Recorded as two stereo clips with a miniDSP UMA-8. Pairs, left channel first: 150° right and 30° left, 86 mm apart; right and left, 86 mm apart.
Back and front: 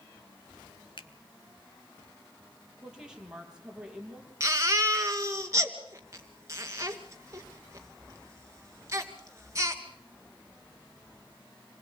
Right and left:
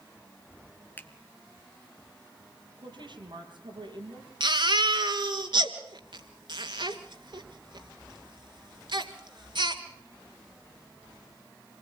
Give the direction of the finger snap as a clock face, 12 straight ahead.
5 o'clock.